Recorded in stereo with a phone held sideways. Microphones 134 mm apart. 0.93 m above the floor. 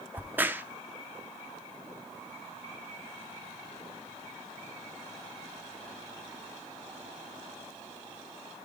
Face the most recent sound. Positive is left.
turn(degrees=-15)  # may be behind; listen again after turning